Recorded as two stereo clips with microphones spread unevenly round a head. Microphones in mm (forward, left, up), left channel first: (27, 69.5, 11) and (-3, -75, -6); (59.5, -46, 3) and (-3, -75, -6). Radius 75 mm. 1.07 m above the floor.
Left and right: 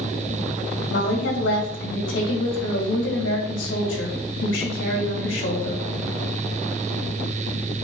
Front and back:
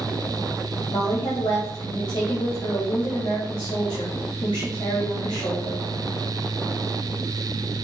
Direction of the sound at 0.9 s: 80° left.